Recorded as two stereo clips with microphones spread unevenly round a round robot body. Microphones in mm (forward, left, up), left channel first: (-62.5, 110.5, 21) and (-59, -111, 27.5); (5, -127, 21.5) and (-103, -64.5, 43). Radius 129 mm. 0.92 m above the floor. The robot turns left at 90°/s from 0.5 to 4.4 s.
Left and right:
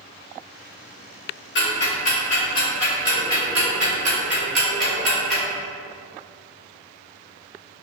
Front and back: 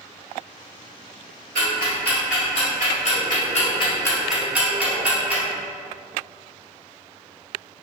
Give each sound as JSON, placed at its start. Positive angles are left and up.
{"t": 1.6, "sound": "ticking", "azimuth_deg": 125, "distance_m": 1.8}